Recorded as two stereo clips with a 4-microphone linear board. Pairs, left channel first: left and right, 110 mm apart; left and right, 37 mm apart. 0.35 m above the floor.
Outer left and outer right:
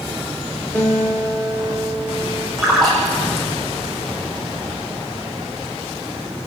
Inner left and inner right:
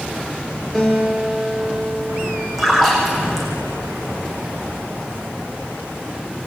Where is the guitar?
15° left (ahead or behind), 6.5 m.